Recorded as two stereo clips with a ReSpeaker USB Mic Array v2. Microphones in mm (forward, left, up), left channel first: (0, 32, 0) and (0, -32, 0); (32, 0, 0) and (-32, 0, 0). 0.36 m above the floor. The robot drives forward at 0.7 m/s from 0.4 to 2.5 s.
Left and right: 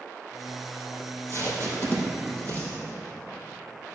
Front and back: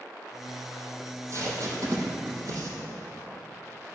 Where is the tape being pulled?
135° left, 3 m; by 2.7 s 145° left, 4 m.